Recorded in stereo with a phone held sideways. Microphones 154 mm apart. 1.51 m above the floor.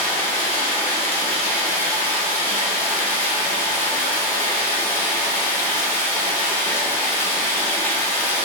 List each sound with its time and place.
0.0 s running water: 15° left (ahead or behind), 0.8 m